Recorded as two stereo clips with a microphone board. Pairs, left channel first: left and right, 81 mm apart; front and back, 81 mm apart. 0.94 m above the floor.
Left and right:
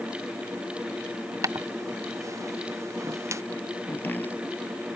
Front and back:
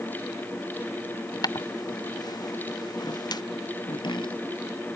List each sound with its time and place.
1.4 s footsteps: 40° right; by 3.4 s 35° right
3.9 s chopping: 20° left